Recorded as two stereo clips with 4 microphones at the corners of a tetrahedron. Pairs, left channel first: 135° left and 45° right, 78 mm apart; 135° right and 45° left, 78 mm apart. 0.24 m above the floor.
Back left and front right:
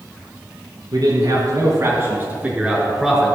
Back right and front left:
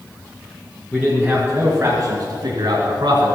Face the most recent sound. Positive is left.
turn(degrees=50)